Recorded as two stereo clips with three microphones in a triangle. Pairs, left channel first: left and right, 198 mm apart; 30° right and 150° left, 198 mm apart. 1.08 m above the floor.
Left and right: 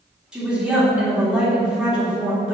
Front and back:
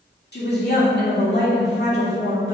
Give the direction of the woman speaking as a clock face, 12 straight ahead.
12 o'clock.